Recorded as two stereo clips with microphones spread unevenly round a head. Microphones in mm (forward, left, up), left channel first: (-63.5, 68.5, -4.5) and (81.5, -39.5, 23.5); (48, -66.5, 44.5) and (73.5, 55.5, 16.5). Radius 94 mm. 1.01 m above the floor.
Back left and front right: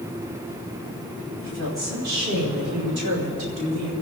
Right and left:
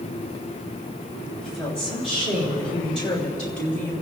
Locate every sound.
1.4 s a woman speaking: 60° right, 5.5 m; by 3.9 s 35° right, 3.5 m